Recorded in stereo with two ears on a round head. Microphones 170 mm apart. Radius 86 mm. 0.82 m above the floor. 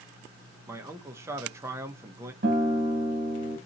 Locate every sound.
0.7 s a man speaking: 15° right (ahead or behind), 0.7 m
2.4 s a guitar: 50° right (ahead or behind), 1.3 m